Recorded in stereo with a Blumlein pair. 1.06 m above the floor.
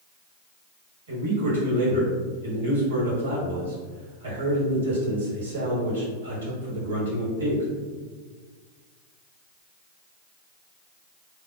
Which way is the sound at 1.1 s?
70° right.